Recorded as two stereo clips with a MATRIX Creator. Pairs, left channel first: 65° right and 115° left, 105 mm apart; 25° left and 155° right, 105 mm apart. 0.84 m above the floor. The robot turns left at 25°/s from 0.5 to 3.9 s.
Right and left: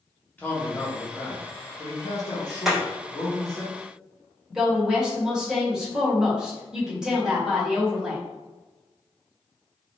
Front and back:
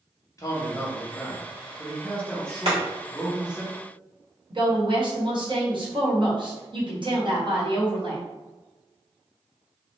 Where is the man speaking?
5° right, 1.0 m; by 3.6 s 85° right, 1.0 m.